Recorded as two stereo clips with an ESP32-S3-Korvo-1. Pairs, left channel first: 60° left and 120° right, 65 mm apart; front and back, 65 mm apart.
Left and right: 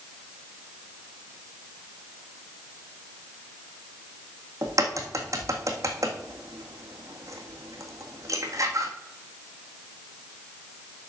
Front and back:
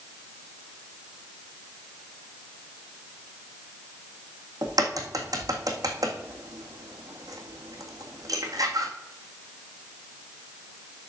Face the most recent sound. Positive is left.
turn(degrees=-155)